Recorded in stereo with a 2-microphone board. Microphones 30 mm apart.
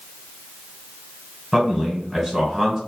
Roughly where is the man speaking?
Centre.